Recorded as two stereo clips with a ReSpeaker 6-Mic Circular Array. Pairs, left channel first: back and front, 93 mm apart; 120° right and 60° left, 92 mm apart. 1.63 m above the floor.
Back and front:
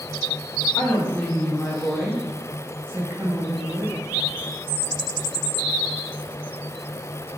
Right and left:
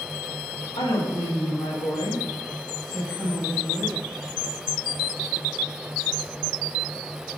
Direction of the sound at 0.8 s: 120° right.